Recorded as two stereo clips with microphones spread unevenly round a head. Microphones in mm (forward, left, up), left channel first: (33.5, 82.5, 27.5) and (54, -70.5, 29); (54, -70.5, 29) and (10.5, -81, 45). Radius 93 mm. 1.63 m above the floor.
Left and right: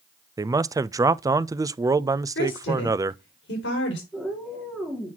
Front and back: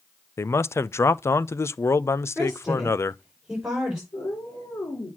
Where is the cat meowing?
10° left, 3.5 m.